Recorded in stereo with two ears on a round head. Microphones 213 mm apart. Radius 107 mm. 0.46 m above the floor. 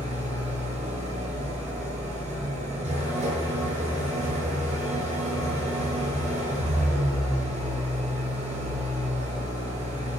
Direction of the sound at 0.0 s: 30° right (ahead or behind).